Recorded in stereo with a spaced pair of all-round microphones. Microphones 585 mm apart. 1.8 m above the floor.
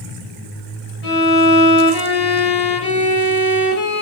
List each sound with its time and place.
1.0 s a violin: 80° left, 1.1 m